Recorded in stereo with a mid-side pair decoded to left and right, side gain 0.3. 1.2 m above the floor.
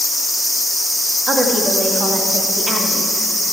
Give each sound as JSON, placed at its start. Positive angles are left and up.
{"t": 1.3, "sound": "a woman speaking", "azimuth_deg": -50, "distance_m": 1.7}